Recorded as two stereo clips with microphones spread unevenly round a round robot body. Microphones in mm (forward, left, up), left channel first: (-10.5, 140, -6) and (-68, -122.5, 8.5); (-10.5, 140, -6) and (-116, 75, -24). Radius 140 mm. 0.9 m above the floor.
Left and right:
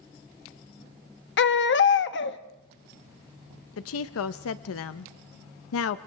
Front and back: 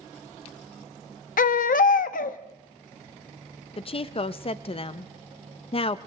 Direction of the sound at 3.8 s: 70° left.